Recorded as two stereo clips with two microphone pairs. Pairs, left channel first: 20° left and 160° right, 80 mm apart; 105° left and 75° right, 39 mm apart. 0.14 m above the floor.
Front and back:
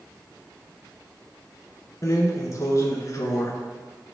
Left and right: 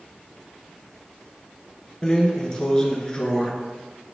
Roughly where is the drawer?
Ahead left.